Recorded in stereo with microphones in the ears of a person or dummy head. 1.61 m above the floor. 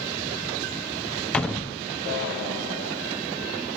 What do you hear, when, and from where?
1.3 s a door slam: 10° left (ahead or behind), 0.6 m